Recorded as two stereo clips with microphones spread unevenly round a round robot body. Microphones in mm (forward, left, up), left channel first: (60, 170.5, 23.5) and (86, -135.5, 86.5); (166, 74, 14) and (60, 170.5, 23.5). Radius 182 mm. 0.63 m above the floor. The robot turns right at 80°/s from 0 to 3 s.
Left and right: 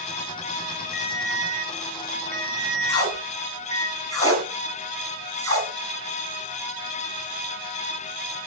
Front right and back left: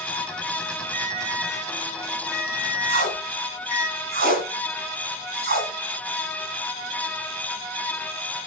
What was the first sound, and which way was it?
A ringtone, 175° right.